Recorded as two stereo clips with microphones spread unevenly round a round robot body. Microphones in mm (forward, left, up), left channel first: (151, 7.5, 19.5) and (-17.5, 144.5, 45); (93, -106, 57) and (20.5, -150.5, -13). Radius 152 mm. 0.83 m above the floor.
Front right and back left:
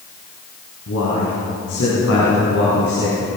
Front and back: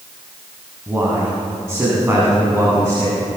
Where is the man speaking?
80° right, 6.5 m; by 3.4 s 90° right, 8.5 m.